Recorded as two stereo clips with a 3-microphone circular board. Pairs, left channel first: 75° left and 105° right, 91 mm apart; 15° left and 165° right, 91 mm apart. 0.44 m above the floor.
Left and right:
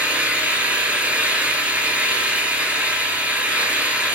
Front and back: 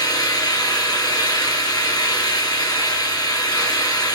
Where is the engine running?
30° right, 3 m.